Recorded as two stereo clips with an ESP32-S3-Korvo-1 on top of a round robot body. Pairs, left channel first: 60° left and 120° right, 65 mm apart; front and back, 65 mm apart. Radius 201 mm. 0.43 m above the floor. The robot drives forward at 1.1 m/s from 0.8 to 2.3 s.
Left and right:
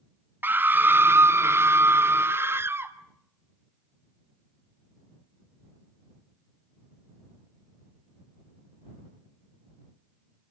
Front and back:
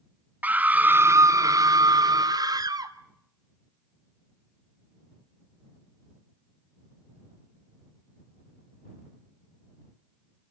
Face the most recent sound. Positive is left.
turn(degrees=-175)